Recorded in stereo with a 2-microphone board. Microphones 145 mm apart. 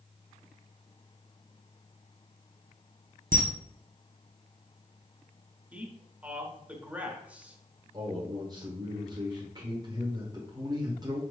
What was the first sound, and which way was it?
A camera shutter, 70° right (ahead or behind).